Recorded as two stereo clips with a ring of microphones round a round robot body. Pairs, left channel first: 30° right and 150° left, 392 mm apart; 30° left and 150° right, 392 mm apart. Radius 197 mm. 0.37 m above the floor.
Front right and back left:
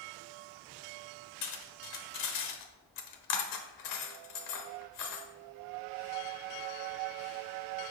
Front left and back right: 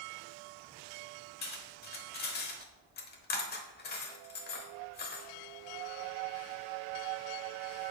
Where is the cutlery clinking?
30° right, 0.9 m.